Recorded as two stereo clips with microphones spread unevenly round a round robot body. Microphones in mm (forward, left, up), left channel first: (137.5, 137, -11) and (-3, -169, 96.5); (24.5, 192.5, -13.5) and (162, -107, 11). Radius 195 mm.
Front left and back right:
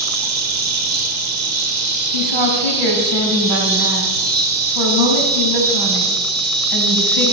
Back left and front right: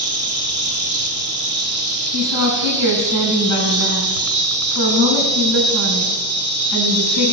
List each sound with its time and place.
0.0 s an insect: 105° right, 1.4 m
2.1 s a woman speaking: 105° right, 3.5 m